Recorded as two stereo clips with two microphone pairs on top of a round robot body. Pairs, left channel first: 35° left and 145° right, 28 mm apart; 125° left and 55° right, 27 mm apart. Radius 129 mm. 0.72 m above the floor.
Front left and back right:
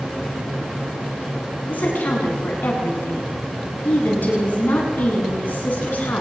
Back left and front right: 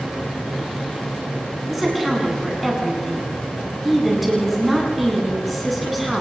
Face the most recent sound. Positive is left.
turn(degrees=35)